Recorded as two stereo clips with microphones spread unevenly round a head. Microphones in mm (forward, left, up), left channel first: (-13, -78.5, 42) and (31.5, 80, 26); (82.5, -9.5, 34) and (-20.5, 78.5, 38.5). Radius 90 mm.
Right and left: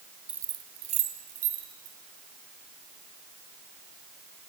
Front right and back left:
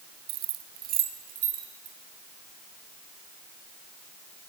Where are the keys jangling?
160° left, 0.7 m; by 1.9 s 115° left, 3 m.